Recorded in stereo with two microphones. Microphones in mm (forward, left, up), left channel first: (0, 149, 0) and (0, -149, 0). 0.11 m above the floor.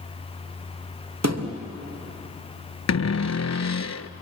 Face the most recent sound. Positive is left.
turn(degrees=60)  # may be behind; listen again after turning